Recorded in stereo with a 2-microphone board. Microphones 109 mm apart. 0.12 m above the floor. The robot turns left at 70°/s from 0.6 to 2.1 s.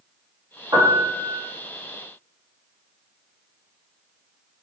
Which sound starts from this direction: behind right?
A piano, at 0.7 s.